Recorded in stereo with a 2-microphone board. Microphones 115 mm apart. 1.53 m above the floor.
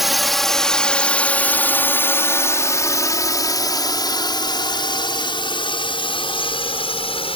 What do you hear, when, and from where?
0.0 s a drone: centre (ahead or behind); by 7.4 s 55° left (ahead or behind)